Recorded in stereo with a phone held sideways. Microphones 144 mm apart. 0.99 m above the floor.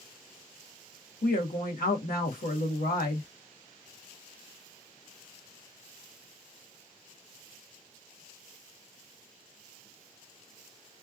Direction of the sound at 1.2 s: 80° left.